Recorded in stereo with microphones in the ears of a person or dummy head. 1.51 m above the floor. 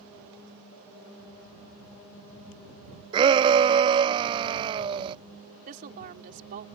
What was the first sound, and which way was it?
A shout, 25° right (ahead or behind).